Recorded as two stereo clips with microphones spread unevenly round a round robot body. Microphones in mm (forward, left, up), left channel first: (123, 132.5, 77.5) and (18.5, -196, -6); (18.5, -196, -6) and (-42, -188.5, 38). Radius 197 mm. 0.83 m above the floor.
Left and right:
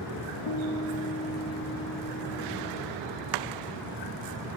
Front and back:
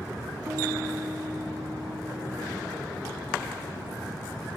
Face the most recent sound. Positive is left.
turn(degrees=100)